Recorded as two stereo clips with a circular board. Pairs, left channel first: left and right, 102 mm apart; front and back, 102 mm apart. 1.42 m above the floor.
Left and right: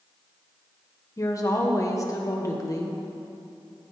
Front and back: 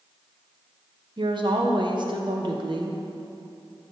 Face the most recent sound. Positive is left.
turn(degrees=145)